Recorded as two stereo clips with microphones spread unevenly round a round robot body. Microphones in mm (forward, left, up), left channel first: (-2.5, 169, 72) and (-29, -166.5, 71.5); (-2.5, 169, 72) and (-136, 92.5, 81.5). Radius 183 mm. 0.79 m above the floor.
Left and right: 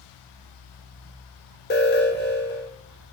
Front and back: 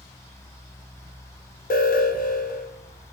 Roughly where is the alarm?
Ahead left.